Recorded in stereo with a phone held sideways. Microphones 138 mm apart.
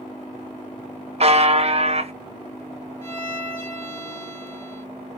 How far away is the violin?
About 1.2 m.